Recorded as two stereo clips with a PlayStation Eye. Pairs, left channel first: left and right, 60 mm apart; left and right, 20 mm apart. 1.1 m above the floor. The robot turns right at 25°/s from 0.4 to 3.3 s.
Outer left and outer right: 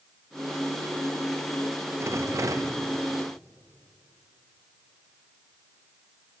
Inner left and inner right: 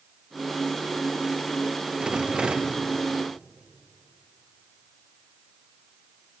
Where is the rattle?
45° right (ahead or behind), 0.6 m; by 2.8 s 65° right (ahead or behind), 0.6 m.